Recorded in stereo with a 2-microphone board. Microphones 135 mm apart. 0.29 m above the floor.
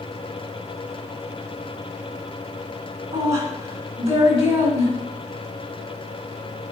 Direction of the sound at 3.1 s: 55° right (ahead or behind).